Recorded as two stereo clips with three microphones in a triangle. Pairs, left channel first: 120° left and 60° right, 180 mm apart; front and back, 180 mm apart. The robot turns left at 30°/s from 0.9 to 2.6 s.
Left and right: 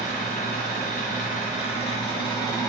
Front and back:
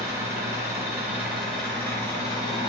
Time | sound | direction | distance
0.0 | an engine running | 110° left | 1.2 m